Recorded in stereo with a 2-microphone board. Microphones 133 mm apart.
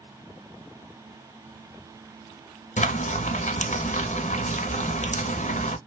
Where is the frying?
70° left (ahead or behind), 0.6 m.